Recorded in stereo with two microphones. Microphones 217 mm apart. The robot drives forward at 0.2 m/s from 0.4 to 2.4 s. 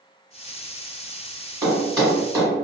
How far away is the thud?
About 1.4 m.